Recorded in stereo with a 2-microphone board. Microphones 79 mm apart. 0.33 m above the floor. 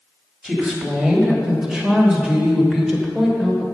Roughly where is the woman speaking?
Centre.